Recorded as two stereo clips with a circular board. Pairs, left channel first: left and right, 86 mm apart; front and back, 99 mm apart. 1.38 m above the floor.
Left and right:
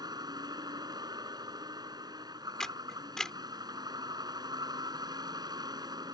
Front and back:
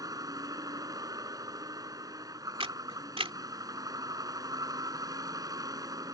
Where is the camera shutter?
175° left.